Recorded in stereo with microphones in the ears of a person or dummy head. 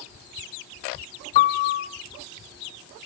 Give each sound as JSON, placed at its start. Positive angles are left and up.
{"t": 1.4, "sound": "a piano", "side_deg": 35, "distance_m": 0.9}